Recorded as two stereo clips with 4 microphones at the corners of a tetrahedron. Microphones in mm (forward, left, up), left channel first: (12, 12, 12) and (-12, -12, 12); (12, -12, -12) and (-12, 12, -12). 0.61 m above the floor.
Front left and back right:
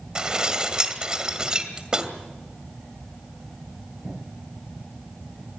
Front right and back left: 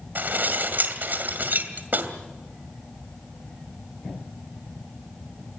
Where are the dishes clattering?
160° left, 2 m.